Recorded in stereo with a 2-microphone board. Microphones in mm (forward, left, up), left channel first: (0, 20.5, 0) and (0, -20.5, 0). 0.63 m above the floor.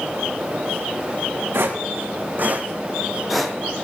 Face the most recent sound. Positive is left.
turn(degrees=10)  # may be behind; listen again after turning